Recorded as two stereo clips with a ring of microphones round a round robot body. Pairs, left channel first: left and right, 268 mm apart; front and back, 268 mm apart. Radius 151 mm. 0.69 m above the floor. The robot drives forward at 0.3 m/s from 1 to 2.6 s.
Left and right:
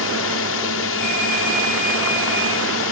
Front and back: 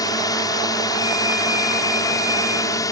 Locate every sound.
0.0 s a drone: 75° left